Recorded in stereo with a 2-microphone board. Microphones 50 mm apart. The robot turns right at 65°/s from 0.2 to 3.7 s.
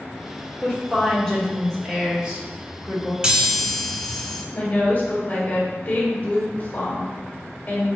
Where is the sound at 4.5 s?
40° left (ahead or behind), 1.7 m.